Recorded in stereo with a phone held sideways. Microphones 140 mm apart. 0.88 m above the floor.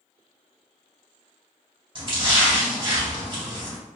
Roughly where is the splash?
Right.